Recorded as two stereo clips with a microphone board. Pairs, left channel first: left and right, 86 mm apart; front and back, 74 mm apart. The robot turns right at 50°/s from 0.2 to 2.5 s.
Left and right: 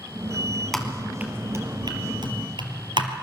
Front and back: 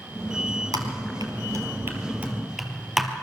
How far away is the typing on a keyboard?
About 3 m.